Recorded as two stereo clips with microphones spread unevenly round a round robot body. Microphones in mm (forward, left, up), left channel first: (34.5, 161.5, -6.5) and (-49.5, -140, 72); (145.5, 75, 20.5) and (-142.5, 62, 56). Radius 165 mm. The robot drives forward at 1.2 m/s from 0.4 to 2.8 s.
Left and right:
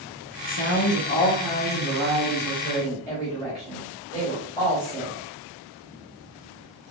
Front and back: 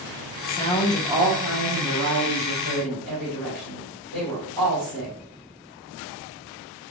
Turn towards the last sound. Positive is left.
turn(degrees=165)